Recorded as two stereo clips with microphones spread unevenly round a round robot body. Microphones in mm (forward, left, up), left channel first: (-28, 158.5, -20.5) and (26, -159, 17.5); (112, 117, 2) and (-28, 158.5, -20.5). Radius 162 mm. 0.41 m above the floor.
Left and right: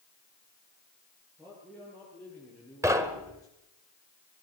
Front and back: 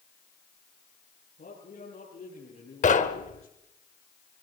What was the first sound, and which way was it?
A man speaking, 10° left.